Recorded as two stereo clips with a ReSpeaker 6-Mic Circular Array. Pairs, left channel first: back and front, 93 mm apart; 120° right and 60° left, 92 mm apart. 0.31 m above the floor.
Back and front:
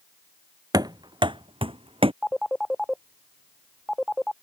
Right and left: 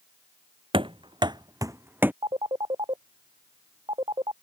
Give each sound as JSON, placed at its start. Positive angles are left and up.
{"t": 0.7, "sound": "running footsteps", "azimuth_deg": 45}
{"t": 2.2, "sound": "a phone ringing", "azimuth_deg": 90}